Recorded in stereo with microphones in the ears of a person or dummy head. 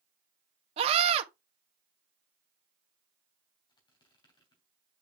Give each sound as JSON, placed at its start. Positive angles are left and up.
{"t": 0.8, "sound": "a scream", "side_deg": -35, "distance_m": 1.5}
{"t": 3.7, "sound": "a squeak", "side_deg": 25, "distance_m": 3.0}